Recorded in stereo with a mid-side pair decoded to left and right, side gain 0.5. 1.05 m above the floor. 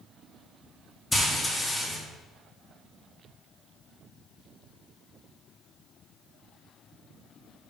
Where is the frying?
20° left, 2 m.